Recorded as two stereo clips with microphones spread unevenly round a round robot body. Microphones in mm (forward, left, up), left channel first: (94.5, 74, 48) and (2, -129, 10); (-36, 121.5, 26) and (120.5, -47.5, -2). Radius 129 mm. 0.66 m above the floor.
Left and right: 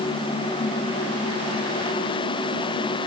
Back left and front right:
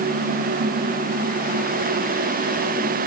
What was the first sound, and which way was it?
Only background noise.